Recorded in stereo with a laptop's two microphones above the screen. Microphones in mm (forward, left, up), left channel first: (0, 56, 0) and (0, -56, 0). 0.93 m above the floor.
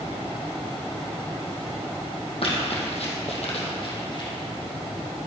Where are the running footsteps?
60° left (ahead or behind), 2.5 m; by 4.3 s 40° left (ahead or behind), 2.5 m.